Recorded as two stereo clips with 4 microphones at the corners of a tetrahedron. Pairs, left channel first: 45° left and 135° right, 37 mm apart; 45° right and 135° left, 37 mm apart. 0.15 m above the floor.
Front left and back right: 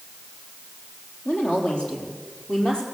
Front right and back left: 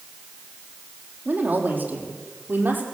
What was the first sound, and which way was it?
A woman speaking, 100° left.